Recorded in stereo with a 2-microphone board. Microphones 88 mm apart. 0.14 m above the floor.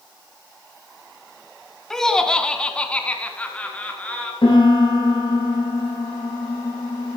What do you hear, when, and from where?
1.9 s laughter: 5° left (ahead or behind), 1.8 m; by 4.3 s 15° left (ahead or behind), 3 m
4.4 s a piano: 75° left (ahead or behind), 6.5 m